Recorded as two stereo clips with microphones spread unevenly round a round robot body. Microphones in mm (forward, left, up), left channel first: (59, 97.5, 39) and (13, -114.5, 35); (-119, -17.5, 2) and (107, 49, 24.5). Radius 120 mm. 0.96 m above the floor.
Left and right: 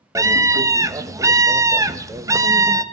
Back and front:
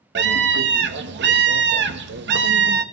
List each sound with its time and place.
0.1 s a scream: 30° right, 1.0 m